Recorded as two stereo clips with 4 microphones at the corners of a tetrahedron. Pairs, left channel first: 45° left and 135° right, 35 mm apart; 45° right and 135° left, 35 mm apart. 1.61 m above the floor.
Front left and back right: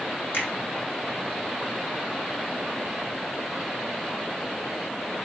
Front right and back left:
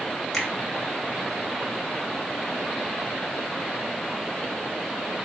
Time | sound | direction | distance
0.3 | a finger snap | 35° left | 3.5 m